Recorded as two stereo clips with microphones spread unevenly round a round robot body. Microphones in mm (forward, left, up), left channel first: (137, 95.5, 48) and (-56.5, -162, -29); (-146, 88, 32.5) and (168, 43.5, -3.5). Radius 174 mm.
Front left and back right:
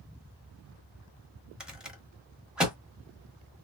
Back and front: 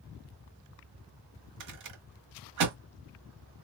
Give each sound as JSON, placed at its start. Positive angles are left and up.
{"t": 1.6, "sound": "a rattle", "azimuth_deg": -45, "distance_m": 1.3}